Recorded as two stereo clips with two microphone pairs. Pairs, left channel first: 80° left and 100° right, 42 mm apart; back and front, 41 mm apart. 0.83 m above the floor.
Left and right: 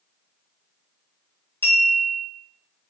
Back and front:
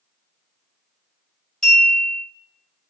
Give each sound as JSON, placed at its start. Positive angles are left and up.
{"t": 1.6, "sound": "a clink", "azimuth_deg": 110, "distance_m": 2.0}